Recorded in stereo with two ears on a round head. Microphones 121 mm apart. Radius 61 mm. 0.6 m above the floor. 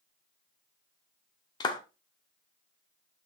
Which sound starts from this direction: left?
A clap, at 1.6 s.